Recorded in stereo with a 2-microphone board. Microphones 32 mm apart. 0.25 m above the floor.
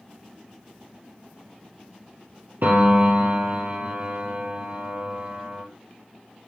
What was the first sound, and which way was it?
A piano, 60° right (ahead or behind).